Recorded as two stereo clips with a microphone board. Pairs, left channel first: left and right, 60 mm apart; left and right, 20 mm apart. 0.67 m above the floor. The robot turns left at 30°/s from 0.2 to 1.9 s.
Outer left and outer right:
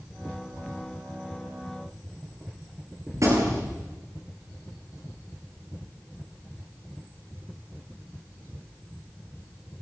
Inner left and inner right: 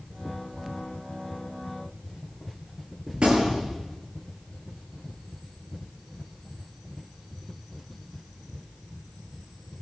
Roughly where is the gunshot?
Right.